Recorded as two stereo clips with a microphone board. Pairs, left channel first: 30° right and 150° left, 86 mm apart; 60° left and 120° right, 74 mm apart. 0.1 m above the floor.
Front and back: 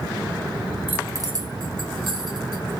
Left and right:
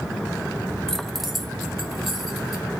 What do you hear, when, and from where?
0.9 s keys jangling: 130° left, 0.8 m; by 2.6 s 155° left, 3 m